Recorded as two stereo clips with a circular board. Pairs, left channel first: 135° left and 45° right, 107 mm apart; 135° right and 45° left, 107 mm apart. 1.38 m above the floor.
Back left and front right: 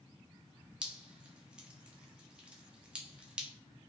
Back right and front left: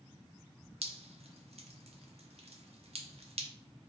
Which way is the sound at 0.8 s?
35° left.